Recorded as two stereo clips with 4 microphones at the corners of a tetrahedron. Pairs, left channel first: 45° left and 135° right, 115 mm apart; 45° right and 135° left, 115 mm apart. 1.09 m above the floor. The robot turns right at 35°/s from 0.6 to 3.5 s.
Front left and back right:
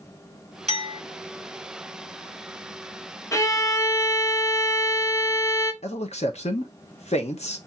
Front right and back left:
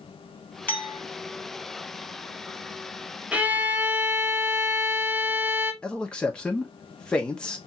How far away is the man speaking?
About 0.9 m.